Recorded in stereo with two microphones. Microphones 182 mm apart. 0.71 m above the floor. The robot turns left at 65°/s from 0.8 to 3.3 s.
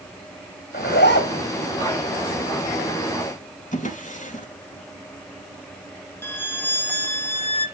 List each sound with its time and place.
0.7 s a zipper: 120° left, 3 m; by 1.5 s 75° left, 3 m
3.7 s a drawer: 45° left (ahead or behind), 3.5 m
6.2 s a violin: 10° left (ahead or behind), 1.6 m